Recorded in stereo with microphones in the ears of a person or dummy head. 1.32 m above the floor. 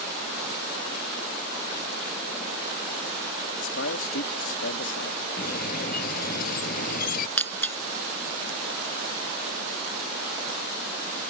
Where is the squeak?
55° left (ahead or behind).